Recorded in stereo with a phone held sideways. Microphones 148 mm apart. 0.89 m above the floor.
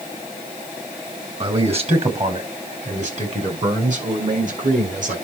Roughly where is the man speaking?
Right.